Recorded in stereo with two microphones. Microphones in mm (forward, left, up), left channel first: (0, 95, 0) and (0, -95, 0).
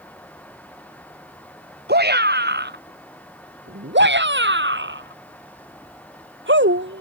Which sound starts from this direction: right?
A shout, at 1.9 s.